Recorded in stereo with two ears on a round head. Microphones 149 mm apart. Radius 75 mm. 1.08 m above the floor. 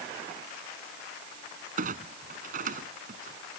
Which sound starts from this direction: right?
A clunk, at 1.8 s.